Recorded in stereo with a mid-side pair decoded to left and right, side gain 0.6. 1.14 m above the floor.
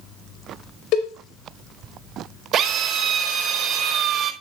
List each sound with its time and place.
0.9 s a cowbell: 65° left, 4.5 m
2.5 s a drill: 50° right, 4.5 m